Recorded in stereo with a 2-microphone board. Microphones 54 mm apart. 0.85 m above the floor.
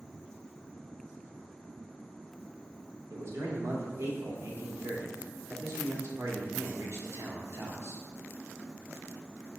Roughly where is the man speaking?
Right.